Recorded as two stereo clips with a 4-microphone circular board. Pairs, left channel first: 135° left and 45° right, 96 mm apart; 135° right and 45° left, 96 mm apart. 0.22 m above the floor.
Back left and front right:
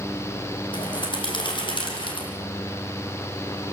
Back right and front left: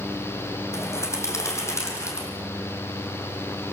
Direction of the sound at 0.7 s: 165° left.